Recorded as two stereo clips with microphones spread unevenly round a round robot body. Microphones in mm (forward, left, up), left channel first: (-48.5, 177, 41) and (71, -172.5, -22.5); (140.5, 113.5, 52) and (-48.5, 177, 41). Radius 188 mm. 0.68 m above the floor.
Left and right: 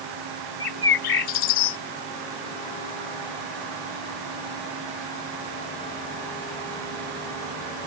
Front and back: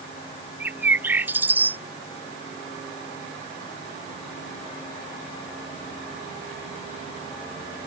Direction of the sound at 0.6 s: 80° left.